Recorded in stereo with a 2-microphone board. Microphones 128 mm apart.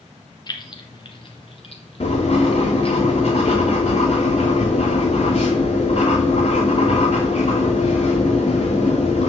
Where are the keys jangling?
35° left (ahead or behind), 1.2 m; by 3.0 s 50° left (ahead or behind), 2 m.